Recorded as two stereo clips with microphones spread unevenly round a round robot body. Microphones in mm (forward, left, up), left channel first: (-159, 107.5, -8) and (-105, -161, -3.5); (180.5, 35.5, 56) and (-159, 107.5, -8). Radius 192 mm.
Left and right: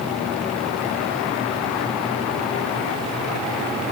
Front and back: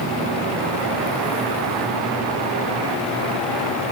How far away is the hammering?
No hammering in this recording.